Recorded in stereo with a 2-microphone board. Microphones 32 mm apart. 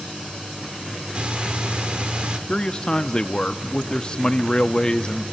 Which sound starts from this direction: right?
Breathing, at 1.1 s.